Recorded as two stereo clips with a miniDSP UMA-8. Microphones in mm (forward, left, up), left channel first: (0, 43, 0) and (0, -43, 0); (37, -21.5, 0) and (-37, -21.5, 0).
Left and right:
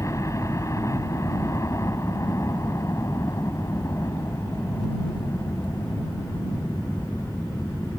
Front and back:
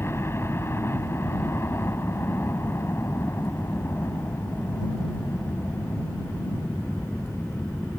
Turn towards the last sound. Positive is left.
turn(degrees=45)